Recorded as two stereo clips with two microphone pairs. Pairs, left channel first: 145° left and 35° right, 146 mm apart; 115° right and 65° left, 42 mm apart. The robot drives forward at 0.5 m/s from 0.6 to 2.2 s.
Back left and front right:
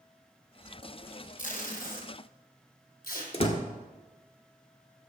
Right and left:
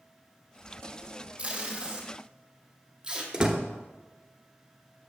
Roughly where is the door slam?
Behind left.